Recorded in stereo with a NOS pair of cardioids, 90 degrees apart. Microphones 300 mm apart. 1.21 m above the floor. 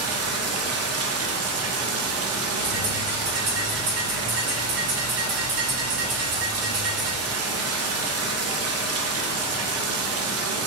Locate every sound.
0.0 s running water: 55° right, 0.9 m
2.6 s a bird: 55° right, 2.0 m